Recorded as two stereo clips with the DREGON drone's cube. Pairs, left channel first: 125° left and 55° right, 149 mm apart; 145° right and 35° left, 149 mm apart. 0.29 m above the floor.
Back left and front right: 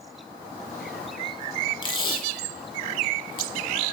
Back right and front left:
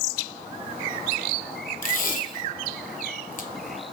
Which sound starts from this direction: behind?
Tape being pulled, at 1.8 s.